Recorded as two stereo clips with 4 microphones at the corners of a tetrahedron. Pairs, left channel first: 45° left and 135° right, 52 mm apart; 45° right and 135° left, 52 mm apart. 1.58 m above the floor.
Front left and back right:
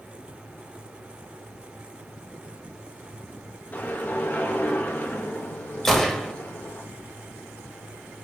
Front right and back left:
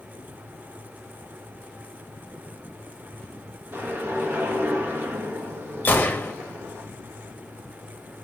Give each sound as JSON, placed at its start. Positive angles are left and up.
{"t": 3.7, "sound": "a whoosh", "azimuth_deg": 95, "distance_m": 2.0}
{"t": 5.8, "sound": "a gunshot", "azimuth_deg": -40, "distance_m": 1.6}